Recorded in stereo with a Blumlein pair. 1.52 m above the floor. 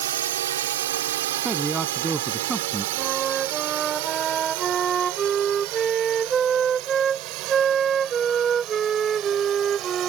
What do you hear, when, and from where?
0.0 s a drone: 60° right; by 10.1 s 35° right
1.4 s a man speaking: 10° right
3.0 s a flute: 20° right